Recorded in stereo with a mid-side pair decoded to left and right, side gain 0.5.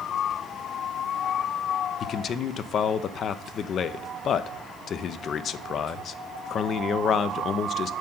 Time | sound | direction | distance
2.0 | a man speaking | 50° left | 0.6 m